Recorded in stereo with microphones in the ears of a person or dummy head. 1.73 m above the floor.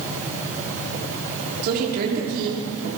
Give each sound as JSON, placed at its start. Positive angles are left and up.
{"t": 1.6, "sound": "a woman speaking", "side_deg": -55, "distance_m": 5.5}